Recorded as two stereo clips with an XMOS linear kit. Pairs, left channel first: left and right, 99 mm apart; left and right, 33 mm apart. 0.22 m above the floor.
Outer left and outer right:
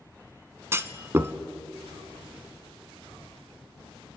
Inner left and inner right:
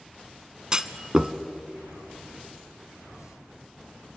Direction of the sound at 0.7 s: 25° right (ahead or behind).